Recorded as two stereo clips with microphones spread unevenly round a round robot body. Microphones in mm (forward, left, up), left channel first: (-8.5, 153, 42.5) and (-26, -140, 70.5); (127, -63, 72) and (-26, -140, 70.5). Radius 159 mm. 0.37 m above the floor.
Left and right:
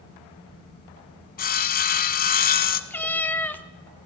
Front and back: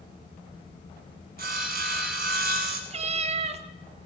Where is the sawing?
150° left, 0.7 m.